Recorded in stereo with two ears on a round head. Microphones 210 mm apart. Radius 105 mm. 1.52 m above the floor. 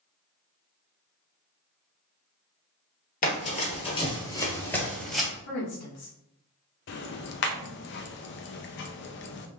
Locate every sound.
3.2 s running footsteps: 35° left (ahead or behind), 1.8 m; by 5.3 s centre (ahead or behind), 1.7 m
5.5 s a woman speaking: 75° left (ahead or behind), 1.6 m
6.9 s ticking: 50° left (ahead or behind), 0.6 m